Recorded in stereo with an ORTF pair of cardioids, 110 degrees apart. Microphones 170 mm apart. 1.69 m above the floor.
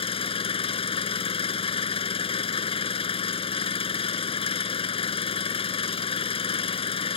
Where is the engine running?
35° left.